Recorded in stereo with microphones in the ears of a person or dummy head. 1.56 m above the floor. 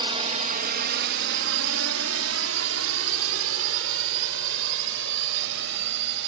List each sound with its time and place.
0.0 s a drone: 25° right (ahead or behind); by 6.3 s 65° right (ahead or behind)